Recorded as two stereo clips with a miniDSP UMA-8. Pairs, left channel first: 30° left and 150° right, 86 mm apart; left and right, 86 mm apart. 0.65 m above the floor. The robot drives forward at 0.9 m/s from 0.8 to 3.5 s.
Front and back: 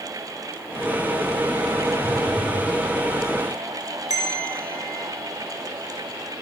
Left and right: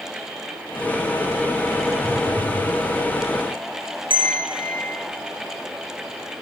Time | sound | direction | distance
2.0 | a phone buzzing | 175° left | 4.5 m
4.1 | a bell | 110° right | 2.5 m